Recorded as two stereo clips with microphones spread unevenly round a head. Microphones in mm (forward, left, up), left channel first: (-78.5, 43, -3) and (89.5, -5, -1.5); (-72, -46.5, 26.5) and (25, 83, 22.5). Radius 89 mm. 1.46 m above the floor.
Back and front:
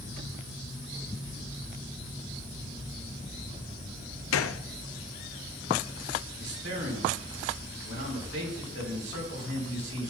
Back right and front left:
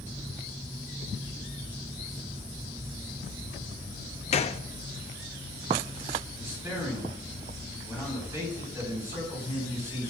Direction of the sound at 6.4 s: 20° right.